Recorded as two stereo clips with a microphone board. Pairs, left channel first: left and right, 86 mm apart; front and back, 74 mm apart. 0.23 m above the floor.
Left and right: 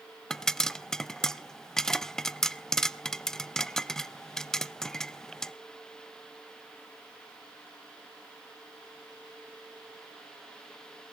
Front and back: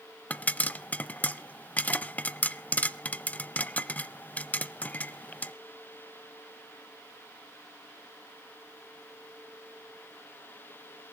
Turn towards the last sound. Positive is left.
turn(degrees=20)